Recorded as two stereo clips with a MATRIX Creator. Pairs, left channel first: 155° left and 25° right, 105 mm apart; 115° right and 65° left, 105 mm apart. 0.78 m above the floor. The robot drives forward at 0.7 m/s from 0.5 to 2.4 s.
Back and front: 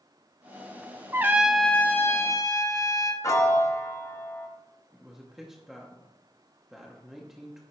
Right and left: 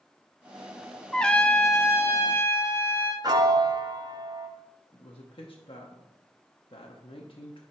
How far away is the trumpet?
About 0.6 m.